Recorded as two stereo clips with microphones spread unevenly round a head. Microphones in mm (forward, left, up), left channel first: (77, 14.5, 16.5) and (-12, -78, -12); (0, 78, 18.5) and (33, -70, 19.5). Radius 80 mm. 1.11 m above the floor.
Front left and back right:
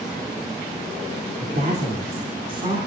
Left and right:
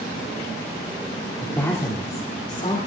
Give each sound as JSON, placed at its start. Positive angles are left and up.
{"t": 1.4, "sound": "a woman speaking", "azimuth_deg": -175, "distance_m": 2.5}